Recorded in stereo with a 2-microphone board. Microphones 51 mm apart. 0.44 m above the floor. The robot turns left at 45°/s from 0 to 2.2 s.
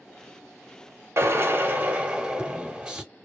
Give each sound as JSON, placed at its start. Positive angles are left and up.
{"t": 1.2, "sound": "a drill", "azimuth_deg": -115, "distance_m": 1.0}